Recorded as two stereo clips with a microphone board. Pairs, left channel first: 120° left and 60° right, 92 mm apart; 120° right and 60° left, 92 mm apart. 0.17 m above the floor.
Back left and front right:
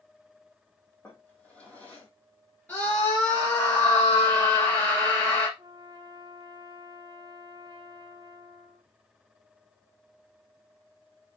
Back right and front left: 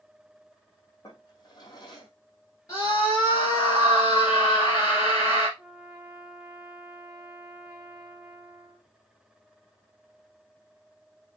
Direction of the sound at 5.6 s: 15° right.